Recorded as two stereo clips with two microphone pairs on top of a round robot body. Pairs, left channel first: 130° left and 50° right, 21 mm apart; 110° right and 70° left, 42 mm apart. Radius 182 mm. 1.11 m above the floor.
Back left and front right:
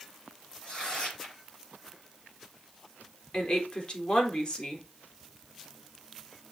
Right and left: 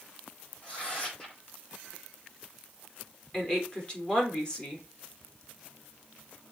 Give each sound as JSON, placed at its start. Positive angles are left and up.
{"t": 0.6, "sound": "tearing paper", "azimuth_deg": -175, "distance_m": 5.5}
{"t": 3.3, "sound": "a woman speaking", "azimuth_deg": 180, "distance_m": 3.0}